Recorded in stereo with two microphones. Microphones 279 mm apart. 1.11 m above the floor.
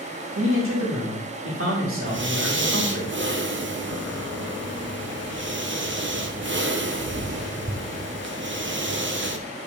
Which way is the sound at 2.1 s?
45° right (ahead or behind).